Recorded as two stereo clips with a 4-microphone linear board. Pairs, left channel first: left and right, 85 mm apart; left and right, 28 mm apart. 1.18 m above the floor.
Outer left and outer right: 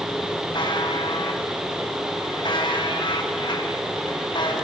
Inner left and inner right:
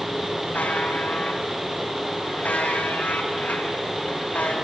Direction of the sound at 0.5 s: 65° left (ahead or behind).